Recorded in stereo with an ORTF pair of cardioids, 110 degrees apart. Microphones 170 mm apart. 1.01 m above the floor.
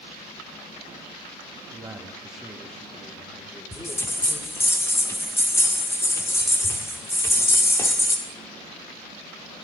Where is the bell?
15° left, 1.7 m.